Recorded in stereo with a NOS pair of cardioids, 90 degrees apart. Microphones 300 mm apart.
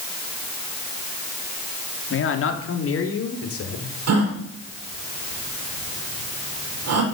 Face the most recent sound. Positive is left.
turn(degrees=-60)